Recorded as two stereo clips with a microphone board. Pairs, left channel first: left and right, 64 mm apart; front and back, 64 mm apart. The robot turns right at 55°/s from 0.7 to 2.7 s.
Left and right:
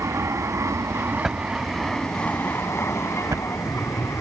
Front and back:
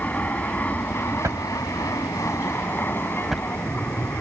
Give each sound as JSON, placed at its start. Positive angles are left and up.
{"t": 0.0, "sound": "an aircraft", "azimuth_deg": -60}
{"t": 1.2, "sound": "a drawer", "azimuth_deg": -175}